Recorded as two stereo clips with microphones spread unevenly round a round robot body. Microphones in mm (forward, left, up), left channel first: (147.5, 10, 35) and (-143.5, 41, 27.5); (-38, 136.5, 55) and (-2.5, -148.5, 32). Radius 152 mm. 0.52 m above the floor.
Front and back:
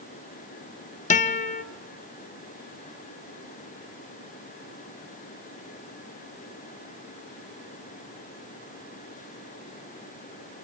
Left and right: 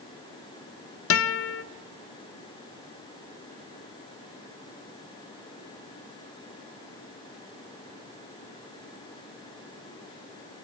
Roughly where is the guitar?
Ahead left.